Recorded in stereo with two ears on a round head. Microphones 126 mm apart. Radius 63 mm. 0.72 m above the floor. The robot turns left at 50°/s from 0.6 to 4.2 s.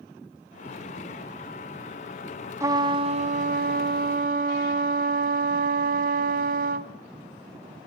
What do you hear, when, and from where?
2.6 s a trumpet: 20° right, 1.2 m; by 6.9 s 100° right, 1.2 m